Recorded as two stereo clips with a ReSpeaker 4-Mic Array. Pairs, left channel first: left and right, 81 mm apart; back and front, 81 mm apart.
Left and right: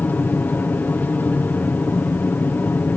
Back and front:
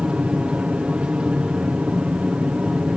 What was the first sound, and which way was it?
An aircraft, 60° left.